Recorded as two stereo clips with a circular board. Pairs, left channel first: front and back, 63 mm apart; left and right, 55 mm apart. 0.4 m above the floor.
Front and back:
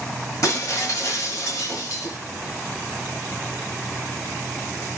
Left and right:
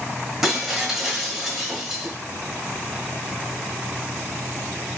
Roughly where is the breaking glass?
Ahead.